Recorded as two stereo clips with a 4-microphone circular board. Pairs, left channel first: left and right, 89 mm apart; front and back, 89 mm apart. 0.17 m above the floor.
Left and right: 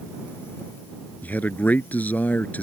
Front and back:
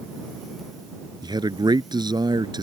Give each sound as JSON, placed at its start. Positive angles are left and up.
{"t": 1.2, "sound": "a man speaking", "azimuth_deg": 160}